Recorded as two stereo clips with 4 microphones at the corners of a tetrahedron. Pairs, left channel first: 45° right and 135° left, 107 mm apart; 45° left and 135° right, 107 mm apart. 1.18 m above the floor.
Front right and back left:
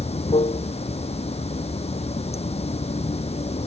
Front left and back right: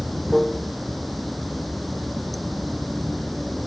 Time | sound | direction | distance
0.0 | running water | 45° right | ?